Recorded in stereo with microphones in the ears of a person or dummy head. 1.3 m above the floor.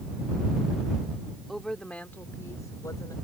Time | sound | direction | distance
1.5 | a woman speaking | centre (ahead or behind) | ?